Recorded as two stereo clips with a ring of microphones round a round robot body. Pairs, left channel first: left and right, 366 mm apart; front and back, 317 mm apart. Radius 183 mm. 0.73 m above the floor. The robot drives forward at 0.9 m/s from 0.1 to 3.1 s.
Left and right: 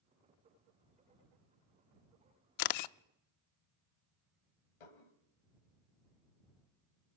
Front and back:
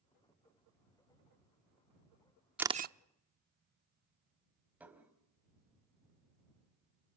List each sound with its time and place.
2.6 s a camera shutter: 95° left, 0.6 m; by 3.0 s 125° left, 0.7 m
4.8 s dishes clattering: 95° left, 3 m